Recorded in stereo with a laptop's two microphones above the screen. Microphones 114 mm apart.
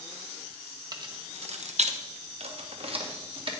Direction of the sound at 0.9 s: 35° right (ahead or behind).